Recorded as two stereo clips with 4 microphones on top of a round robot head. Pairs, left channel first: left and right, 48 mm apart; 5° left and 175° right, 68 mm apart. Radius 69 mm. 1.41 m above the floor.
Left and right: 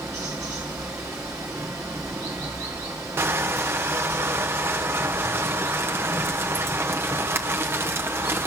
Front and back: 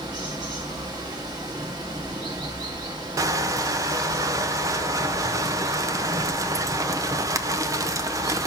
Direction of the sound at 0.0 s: 140° right.